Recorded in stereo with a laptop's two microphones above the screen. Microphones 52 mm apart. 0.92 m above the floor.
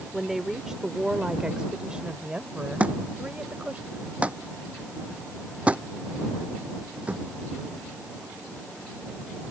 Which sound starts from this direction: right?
A thud, at 2.8 s.